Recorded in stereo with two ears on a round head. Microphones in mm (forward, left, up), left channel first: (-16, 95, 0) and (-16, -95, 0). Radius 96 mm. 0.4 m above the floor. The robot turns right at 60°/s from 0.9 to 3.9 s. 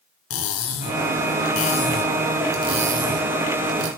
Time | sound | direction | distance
0.3 | cutlery clinking | 80° left | 3 m